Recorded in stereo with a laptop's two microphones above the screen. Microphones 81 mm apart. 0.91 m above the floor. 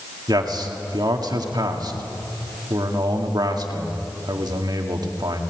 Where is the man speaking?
55° right (ahead or behind), 2.0 m.